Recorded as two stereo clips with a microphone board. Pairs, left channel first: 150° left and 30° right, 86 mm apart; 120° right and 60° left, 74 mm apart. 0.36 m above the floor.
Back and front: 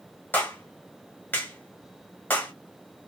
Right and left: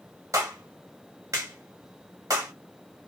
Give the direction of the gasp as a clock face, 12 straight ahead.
No gasp in this recording.